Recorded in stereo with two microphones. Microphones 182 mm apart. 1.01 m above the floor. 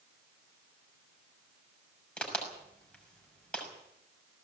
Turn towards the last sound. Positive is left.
turn(degrees=5)  # may be behind; listen again after turning